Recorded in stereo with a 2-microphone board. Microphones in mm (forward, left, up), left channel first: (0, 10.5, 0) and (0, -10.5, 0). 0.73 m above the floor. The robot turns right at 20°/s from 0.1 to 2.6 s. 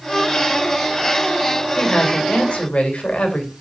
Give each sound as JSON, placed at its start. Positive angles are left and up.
{"t": 1.8, "sound": "a woman speaking", "side_deg": 50, "distance_m": 3.0}